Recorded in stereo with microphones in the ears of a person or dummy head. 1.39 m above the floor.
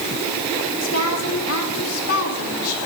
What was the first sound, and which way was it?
A woman speaking, 85° left.